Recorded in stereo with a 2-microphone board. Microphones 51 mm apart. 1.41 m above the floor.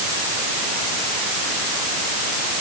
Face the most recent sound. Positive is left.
No sound to turn to.